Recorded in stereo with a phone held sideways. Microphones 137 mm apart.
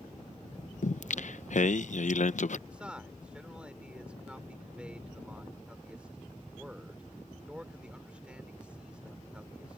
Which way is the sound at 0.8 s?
65° left (ahead or behind).